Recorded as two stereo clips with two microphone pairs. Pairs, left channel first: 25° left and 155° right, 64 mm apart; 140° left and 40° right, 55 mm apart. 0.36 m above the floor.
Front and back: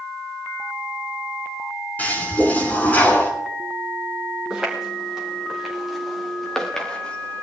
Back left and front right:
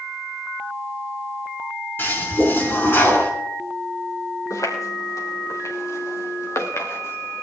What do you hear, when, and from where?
2.0 s a toilet flushing: 90° left, 4.5 m
4.5 s footsteps: 130° left, 6 m; by 7.4 s 95° left, 3 m